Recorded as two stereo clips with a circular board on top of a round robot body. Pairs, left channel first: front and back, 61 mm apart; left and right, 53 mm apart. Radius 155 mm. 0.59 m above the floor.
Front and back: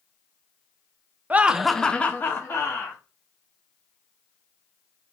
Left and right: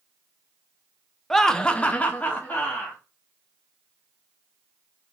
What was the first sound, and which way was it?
Laughter, 170° left.